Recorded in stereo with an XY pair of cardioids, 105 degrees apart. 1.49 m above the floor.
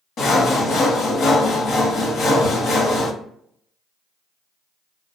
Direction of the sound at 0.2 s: 65° left.